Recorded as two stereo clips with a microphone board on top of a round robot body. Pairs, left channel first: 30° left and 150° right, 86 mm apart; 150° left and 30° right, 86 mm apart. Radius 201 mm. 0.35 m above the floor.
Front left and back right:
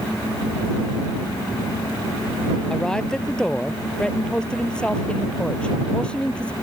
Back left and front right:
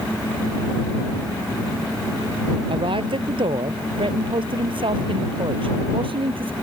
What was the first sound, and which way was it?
A man speaking, 50° right.